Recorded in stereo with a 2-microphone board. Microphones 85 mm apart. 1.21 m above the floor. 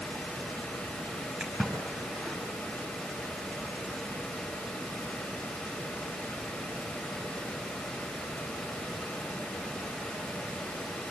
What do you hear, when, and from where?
1.4 s a splash: 5° right (ahead or behind), 6 m